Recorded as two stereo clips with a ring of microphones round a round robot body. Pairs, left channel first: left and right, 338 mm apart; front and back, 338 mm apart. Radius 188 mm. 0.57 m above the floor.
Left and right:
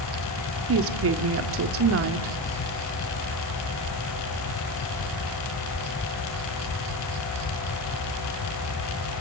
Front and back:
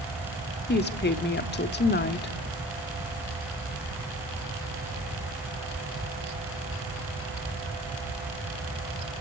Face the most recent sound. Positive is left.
turn(degrees=-50)